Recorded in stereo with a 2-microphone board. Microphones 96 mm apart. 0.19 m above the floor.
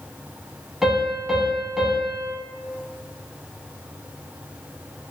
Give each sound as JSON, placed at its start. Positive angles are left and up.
{"t": 0.8, "sound": "a piano", "side_deg": -5, "distance_m": 0.7}